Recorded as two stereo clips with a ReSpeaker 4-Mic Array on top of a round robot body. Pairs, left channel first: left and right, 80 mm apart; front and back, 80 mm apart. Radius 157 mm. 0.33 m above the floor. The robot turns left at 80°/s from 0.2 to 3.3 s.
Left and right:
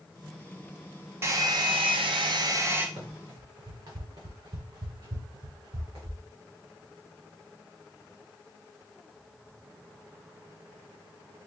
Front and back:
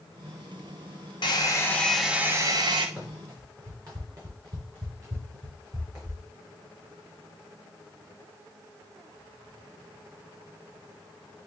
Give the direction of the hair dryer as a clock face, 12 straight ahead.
1 o'clock.